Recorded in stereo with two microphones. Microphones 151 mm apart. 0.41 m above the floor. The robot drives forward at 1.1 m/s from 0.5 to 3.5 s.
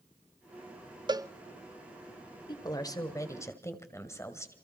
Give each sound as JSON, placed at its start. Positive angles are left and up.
{"t": 1.1, "sound": "a cowbell", "side_deg": -30, "distance_m": 0.5}
{"t": 2.5, "sound": "a woman speaking", "side_deg": 30, "distance_m": 1.5}